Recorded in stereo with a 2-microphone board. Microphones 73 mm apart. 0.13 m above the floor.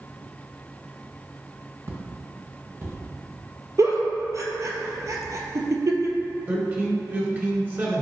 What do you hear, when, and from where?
1.9 s footsteps: 40° right (ahead or behind), 1.4 m
3.8 s a giggle: 50° right (ahead or behind), 0.8 m
6.5 s a man speaking: 30° right (ahead or behind), 1.6 m